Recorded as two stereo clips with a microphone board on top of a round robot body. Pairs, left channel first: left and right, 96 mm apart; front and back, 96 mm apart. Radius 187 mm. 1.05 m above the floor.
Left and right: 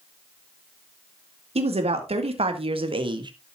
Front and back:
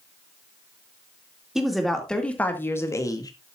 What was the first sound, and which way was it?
A woman speaking, 95° right.